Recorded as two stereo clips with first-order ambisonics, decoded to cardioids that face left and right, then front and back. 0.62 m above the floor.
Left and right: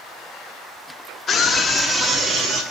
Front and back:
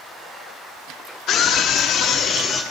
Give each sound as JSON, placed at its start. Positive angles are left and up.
{"t": 1.3, "sound": "a scream", "azimuth_deg": 30, "distance_m": 1.0}